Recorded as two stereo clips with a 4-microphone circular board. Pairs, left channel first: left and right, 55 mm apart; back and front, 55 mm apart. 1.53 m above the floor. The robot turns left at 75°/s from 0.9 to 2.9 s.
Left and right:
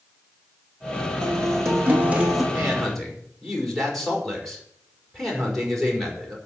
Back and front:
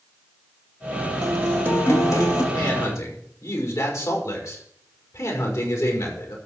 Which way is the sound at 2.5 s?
160° right.